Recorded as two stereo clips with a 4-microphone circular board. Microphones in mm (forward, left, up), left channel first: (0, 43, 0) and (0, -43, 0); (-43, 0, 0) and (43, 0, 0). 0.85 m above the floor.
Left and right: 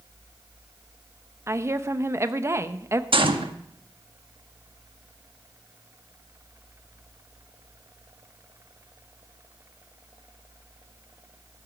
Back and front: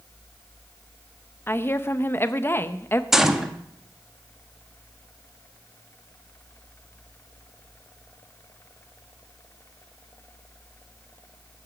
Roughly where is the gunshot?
Right.